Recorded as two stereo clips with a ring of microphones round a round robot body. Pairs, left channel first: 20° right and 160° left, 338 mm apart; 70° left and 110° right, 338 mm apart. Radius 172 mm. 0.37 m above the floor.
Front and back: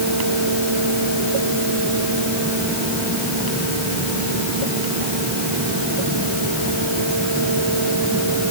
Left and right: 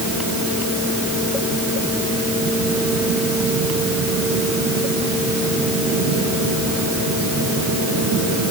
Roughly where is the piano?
I don't hear a piano.